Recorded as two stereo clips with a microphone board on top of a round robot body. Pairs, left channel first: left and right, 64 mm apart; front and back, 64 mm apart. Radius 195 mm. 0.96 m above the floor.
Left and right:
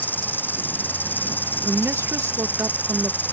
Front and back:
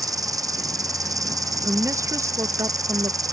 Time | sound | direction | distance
0.0 | an insect | 150° left | ?
1.6 | a woman speaking | 140° right | ?